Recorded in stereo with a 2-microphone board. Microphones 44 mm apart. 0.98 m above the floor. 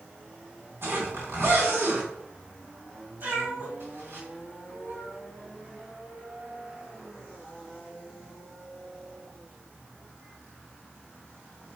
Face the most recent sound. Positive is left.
turn(degrees=-50)  # may be behind; listen again after turning